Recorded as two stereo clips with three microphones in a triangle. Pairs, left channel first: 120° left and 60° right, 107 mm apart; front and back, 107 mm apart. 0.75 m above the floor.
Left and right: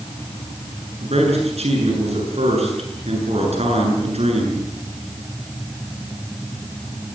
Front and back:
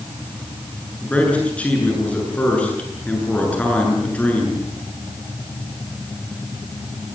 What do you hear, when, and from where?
1.0 s a man speaking: 80° right, 8 m